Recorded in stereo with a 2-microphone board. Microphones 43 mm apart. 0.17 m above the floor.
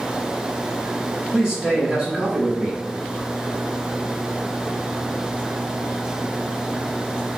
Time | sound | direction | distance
1.3 | a man speaking | 20° right (ahead or behind) | 1.0 m